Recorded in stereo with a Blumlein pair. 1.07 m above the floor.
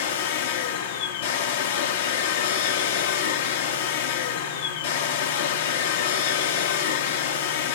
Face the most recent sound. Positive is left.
turn(degrees=55)